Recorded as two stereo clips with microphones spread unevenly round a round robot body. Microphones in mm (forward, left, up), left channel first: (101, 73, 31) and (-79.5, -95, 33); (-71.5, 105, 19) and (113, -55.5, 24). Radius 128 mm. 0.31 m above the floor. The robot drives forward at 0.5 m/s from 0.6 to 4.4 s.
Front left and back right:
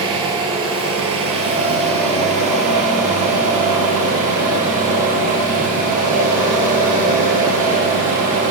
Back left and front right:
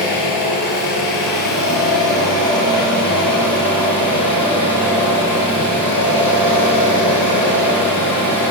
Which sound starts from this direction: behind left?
An engine running, at 0.0 s.